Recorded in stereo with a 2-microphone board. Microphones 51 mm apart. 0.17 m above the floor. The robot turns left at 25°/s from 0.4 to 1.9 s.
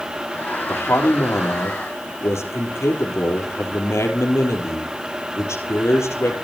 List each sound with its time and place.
0.7 s a man speaking: 110° left, 4 m; by 6.3 s 80° left, 4 m